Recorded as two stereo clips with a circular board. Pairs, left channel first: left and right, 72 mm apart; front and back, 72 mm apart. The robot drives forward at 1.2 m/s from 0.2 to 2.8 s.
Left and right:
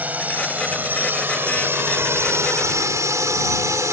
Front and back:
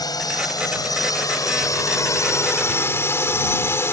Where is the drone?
25° right; by 3.9 s 50° right.